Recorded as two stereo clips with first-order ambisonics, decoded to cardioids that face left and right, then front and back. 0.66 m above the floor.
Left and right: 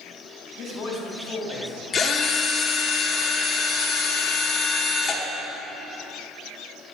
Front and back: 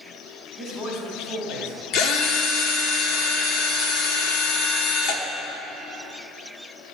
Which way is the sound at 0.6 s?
55° left.